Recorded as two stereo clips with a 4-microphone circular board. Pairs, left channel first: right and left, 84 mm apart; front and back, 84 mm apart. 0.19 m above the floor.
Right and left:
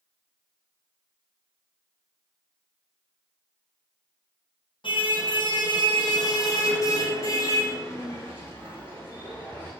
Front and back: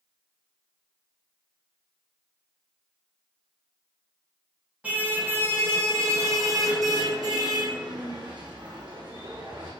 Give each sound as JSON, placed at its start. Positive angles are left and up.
{"t": 4.8, "sound": "a car horn", "azimuth_deg": -105, "distance_m": 5.5}